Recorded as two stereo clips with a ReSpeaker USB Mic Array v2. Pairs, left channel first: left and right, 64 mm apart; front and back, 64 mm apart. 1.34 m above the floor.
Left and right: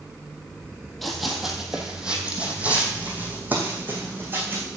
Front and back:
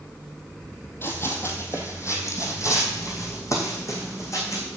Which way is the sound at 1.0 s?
5° left.